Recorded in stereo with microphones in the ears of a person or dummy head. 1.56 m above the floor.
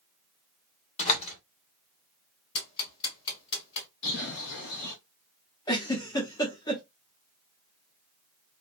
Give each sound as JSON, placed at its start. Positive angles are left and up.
{"t": 1.0, "sound": "a door slam", "side_deg": 35, "distance_m": 1.2}
{"t": 2.5, "sound": "ticking", "side_deg": 30, "distance_m": 1.5}
{"t": 4.0, "sound": "a bird", "side_deg": 60, "distance_m": 1.0}
{"t": 5.7, "sound": "a giggle", "side_deg": 20, "distance_m": 0.7}